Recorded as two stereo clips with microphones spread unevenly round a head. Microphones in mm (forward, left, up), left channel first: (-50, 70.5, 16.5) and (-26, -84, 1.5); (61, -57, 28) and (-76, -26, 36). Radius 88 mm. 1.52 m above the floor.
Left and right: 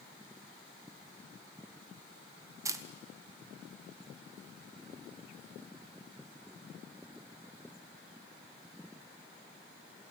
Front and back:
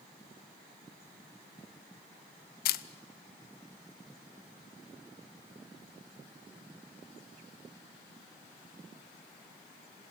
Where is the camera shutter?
10° right, 0.7 m.